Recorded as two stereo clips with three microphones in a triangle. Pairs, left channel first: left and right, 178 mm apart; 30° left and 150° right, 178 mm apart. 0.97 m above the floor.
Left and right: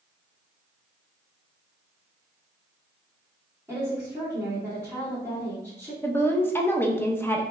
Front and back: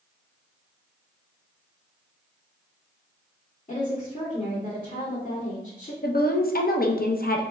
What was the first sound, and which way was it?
A woman speaking, 15° right.